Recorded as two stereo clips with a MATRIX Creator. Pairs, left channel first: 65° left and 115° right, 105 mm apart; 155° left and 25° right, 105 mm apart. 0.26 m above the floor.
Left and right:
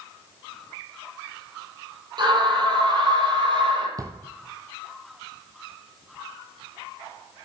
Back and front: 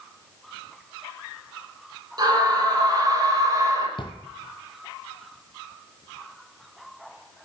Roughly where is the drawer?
Behind.